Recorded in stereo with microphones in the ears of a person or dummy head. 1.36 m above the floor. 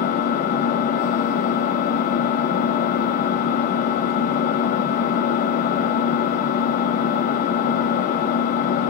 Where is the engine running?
45° left (ahead or behind), 0.8 m.